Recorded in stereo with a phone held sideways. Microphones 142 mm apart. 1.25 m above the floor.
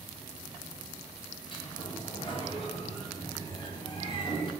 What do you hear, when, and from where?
1.5 s a sliding door: 35° left (ahead or behind), 0.7 m